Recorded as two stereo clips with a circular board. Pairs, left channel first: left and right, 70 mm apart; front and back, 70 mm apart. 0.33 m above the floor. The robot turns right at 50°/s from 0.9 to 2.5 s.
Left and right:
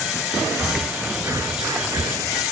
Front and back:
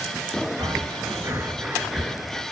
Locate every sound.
0.6 s breathing: 150° right, 1.1 m; by 2.4 s 70° right, 1.1 m